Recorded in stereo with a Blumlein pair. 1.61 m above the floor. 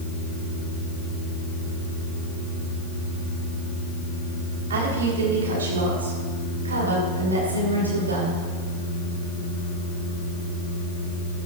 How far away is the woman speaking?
About 4.5 m.